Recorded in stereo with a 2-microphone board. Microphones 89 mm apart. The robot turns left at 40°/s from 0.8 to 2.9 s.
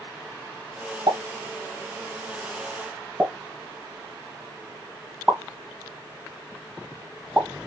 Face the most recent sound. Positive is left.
turn(degrees=-20)  # may be behind; listen again after turning